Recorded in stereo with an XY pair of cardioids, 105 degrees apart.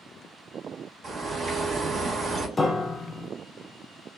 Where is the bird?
45° right, 0.9 m.